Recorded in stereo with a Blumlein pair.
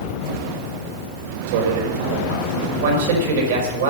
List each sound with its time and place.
1.5 s a man speaking: 55° right, 5 m
2.8 s a man speaking: 55° right, 5 m